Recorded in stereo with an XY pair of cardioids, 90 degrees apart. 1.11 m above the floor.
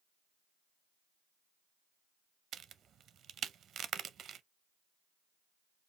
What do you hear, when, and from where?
2.5 s a crack: 65° right, 0.5 m